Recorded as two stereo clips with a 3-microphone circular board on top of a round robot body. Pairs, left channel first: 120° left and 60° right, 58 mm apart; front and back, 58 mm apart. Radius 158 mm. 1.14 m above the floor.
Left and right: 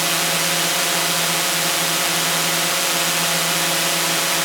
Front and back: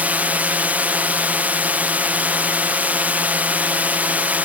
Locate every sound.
0.0 s a drone: 145° right